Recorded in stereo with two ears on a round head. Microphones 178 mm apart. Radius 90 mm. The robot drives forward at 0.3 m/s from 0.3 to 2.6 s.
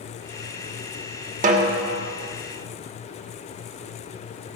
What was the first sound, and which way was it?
A snare drum, 40° right (ahead or behind).